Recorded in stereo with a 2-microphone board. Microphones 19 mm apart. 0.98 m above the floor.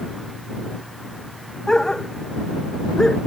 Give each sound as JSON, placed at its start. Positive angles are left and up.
{"t": 1.7, "sound": "a dog barking", "side_deg": 35}